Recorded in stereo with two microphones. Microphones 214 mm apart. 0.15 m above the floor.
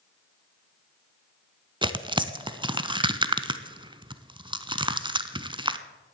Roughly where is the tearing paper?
Right.